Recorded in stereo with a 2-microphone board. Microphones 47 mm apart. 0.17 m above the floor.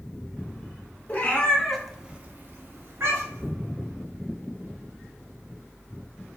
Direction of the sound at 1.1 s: 35° left (ahead or behind).